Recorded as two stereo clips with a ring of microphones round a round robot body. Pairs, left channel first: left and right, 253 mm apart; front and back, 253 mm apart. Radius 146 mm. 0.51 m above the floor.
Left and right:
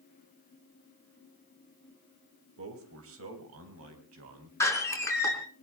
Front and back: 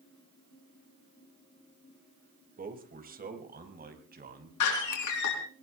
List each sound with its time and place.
2.6 s a man speaking: 125° right, 3 m
4.6 s a door slam: 10° left, 5 m